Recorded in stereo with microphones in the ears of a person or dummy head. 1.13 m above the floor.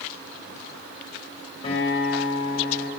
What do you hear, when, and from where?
1.6 s a guitar: 35° left (ahead or behind), 4 m